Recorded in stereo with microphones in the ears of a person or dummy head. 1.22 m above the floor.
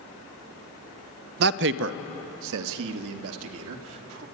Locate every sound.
1.4 s a man speaking: 55° right (ahead or behind), 0.6 m; by 4.2 s 80° right, 2.5 m